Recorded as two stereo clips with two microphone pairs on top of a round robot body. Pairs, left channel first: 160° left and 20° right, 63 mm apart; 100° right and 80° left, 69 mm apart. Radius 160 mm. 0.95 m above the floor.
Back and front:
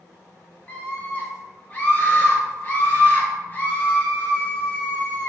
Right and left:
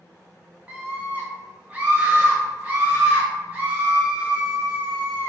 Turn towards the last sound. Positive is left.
turn(degrees=135)